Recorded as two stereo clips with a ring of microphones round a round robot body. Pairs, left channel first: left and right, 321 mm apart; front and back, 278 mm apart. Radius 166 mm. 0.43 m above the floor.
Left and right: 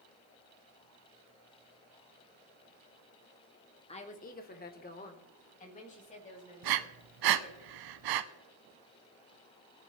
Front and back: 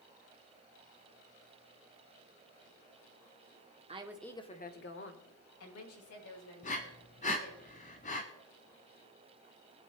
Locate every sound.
3.9 s a woman speaking: 140° left, 1.1 m; by 7.6 s 20° left, 5.5 m
6.6 s breathing: 70° right, 0.7 m